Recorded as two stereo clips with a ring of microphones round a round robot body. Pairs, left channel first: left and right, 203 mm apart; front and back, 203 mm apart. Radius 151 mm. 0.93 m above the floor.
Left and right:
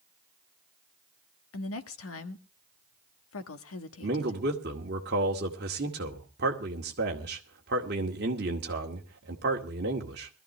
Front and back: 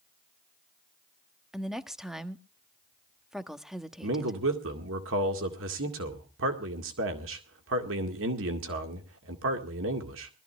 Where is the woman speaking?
90° left, 1.4 m.